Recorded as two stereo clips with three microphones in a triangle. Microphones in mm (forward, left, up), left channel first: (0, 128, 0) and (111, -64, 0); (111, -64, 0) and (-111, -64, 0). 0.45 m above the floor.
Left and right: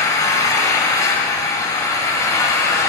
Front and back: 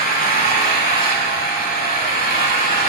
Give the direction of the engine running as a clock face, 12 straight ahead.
11 o'clock.